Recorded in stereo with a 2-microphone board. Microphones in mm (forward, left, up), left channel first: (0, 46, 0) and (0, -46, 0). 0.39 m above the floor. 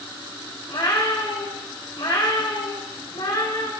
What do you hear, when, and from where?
0.7 s a cat meowing: 65° left (ahead or behind), 4 m